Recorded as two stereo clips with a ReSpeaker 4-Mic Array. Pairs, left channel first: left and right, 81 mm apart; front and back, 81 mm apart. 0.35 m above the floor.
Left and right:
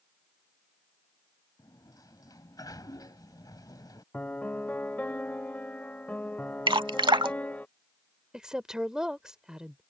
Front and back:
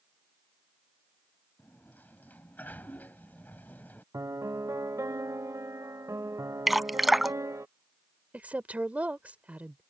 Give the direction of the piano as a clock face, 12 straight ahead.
7 o'clock.